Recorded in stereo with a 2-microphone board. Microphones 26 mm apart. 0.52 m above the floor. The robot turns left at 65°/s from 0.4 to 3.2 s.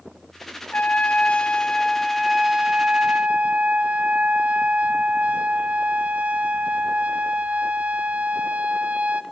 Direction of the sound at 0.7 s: 95° left.